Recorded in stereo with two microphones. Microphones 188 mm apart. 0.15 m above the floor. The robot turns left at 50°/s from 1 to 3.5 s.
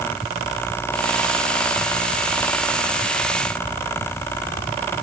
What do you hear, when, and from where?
Only background noise.